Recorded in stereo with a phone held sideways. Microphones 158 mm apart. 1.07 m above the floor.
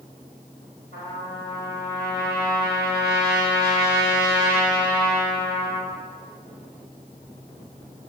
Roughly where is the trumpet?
Right.